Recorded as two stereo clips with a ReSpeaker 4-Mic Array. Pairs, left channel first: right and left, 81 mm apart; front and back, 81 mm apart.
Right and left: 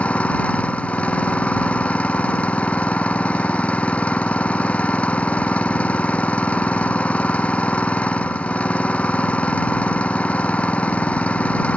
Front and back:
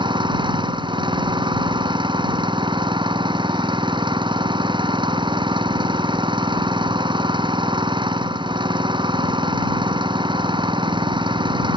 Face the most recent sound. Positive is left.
turn(degrees=-165)